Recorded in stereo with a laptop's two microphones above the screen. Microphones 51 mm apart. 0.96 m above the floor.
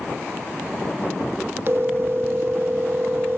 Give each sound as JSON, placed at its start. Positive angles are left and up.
{"t": 1.7, "sound": "a phone ringing", "side_deg": -50, "distance_m": 0.6}